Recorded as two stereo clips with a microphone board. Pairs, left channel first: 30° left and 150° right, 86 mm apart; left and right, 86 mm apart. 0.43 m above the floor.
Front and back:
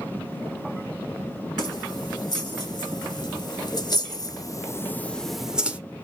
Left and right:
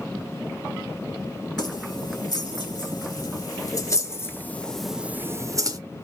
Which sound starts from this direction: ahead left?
Keys jangling, at 1.6 s.